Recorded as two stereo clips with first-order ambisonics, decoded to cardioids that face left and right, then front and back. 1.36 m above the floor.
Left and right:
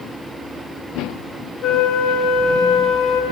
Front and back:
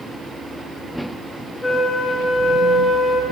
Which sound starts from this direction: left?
A flute, at 1.6 s.